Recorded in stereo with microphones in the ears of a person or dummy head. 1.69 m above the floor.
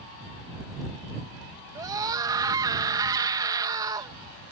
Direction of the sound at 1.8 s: 20° right (ahead or behind).